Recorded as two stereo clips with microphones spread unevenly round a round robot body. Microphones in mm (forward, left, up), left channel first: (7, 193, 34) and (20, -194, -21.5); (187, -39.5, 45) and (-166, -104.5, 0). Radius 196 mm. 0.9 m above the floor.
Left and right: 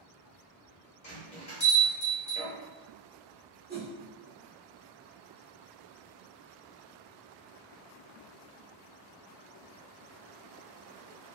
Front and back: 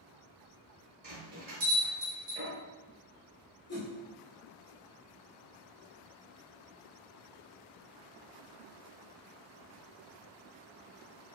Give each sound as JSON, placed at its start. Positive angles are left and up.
{"t": 1.0, "sound": "a bell", "azimuth_deg": 135, "distance_m": 0.6}
{"t": 3.7, "sound": "a whoosh", "azimuth_deg": -45, "distance_m": 1.2}